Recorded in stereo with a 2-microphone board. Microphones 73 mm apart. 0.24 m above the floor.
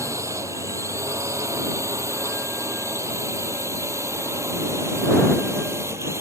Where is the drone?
45° right (ahead or behind); by 6.2 s 40° right (ahead or behind).